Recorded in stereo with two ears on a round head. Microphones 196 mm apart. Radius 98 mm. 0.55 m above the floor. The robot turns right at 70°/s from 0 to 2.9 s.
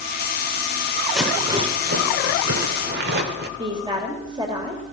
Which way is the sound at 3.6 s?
20° right (ahead or behind).